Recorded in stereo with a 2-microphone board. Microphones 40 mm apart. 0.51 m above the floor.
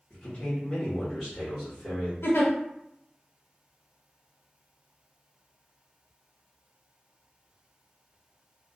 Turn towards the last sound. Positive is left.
turn(degrees=80)